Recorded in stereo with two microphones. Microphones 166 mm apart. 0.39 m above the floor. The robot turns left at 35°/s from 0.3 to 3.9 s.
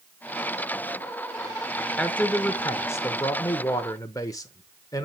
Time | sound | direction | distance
2.0 | a man speaking | 5° left (ahead or behind) | 0.8 m